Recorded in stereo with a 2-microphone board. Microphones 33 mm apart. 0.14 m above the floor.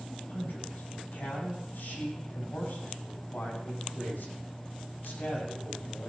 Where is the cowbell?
I don't hear a cowbell.